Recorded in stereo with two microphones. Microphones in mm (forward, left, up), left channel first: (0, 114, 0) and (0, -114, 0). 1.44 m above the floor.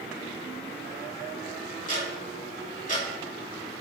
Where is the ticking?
35° left (ahead or behind), 1.5 m.